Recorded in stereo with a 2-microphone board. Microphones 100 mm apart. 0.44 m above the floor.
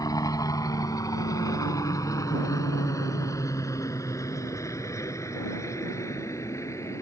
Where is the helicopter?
35° left (ahead or behind); by 7.0 s 30° left (ahead or behind).